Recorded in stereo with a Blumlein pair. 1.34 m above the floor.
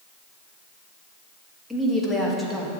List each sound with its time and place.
1.7 s a woman speaking: straight ahead, 1.6 m